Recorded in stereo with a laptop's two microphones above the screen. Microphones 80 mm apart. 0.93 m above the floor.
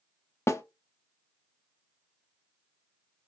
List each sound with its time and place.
0.5 s a snare drum: 35° left (ahead or behind), 0.5 m